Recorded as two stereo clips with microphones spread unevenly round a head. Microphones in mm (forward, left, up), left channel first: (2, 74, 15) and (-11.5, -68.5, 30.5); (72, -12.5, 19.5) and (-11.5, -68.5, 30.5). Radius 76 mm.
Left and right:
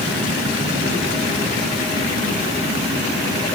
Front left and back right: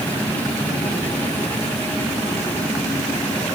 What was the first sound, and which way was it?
A machine running, 40° right.